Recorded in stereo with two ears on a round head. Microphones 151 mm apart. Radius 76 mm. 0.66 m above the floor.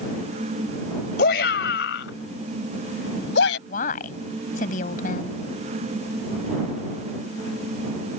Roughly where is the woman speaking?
Left.